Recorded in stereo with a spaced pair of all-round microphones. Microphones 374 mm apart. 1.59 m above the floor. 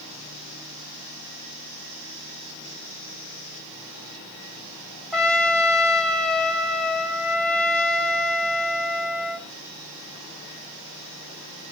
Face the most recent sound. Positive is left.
turn(degrees=0)  # may be behind; listen again after turning